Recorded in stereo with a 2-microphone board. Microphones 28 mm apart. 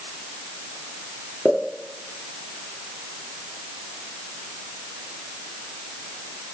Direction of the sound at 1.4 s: 45° left (ahead or behind).